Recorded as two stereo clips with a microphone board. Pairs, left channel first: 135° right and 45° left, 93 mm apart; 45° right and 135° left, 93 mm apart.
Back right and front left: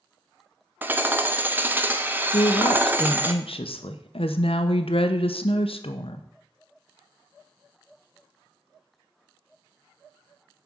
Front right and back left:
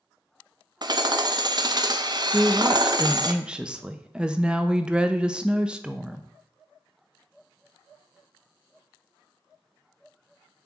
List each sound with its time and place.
0.8 s hammering: 110° left, 0.7 m
2.3 s a woman speaking: 145° right, 0.9 m